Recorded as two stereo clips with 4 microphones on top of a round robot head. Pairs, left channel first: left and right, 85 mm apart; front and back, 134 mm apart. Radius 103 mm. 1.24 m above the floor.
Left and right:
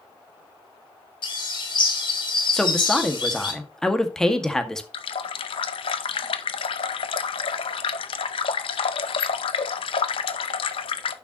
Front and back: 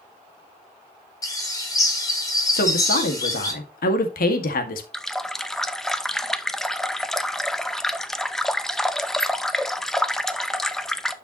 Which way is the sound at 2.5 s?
5° left.